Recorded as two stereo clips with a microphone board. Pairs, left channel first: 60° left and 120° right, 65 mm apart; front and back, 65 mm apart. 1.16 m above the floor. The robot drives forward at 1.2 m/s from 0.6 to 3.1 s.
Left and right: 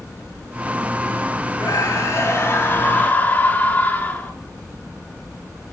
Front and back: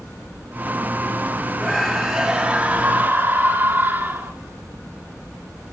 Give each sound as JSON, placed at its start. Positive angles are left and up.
{"t": 1.6, "sound": "a scream", "azimuth_deg": 85, "distance_m": 2.5}